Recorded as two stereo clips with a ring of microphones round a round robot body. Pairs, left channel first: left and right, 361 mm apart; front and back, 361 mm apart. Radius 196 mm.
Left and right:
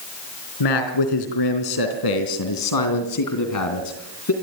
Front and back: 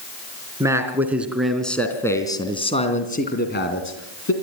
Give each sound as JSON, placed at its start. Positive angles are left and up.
{"t": 0.6, "sound": "a man speaking", "azimuth_deg": 100, "distance_m": 3.5}